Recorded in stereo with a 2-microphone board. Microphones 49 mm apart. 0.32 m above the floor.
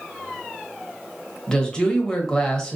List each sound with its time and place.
1.5 s a woman speaking: 15° left (ahead or behind), 1.1 m